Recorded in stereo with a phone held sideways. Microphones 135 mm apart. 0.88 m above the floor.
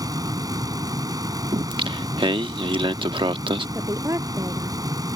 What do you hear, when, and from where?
0.0 s a fan: 30° right (ahead or behind)
1.5 s singing: 40° right (ahead or behind)
3.8 s a woman speaking: 25° right (ahead or behind)